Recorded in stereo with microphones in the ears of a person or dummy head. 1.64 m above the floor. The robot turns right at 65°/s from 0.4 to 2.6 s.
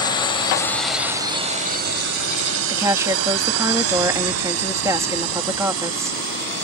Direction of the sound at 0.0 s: 25° left (ahead or behind).